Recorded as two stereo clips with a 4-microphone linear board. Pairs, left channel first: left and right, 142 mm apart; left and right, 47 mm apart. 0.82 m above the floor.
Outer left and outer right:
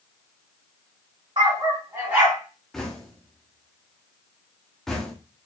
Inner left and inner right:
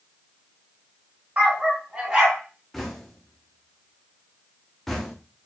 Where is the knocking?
5° left (ahead or behind), 1.0 m.